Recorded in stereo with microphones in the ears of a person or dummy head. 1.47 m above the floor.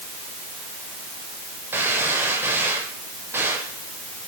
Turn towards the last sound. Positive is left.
turn(degrees=-10)  # may be behind; listen again after turning